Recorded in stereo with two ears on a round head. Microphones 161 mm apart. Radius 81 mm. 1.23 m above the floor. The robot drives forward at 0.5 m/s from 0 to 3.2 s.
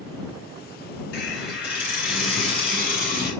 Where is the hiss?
65° left (ahead or behind), 3 m; by 3.3 s 55° left (ahead or behind), 3.5 m.